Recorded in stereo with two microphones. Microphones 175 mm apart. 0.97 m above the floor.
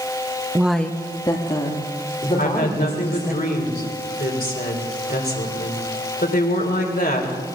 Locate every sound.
0.6 s a woman speaking: 15° right (ahead or behind), 0.6 m; by 3.4 s 40° left (ahead or behind), 4 m
2.4 s a woman speaking: 60° left (ahead or behind), 3 m